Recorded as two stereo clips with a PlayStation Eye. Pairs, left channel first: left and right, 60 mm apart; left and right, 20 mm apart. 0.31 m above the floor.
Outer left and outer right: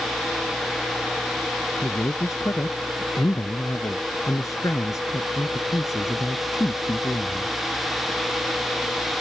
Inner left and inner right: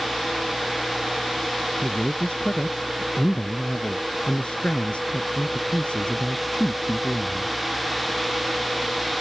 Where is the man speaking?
60° left (ahead or behind).